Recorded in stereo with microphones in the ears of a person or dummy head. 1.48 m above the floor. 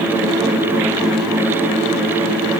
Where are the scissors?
I don't hear scissors.